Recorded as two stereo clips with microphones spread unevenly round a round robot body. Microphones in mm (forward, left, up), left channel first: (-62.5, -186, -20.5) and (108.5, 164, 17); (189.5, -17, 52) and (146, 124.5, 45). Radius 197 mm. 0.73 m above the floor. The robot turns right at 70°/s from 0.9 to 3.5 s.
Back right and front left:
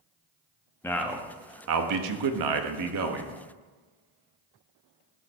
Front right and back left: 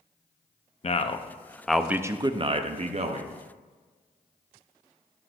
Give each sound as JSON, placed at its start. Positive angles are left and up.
{"t": 0.8, "sound": "a man speaking", "azimuth_deg": -40, "distance_m": 0.7}